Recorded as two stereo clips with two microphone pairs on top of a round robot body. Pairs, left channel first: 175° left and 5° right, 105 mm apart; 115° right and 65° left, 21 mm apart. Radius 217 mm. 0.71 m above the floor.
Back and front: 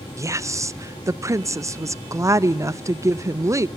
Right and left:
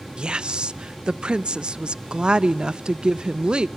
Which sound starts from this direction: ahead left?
A woman speaking, at 0.2 s.